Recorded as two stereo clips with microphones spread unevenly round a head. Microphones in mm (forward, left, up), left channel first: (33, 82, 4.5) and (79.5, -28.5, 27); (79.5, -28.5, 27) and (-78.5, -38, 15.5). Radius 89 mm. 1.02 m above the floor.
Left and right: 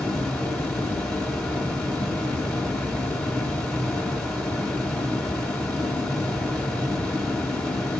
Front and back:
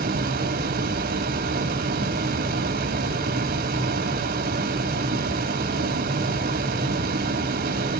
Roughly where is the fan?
Behind.